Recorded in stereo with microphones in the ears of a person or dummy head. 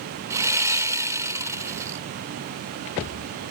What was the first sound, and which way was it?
Sawing, 20° right (ahead or behind).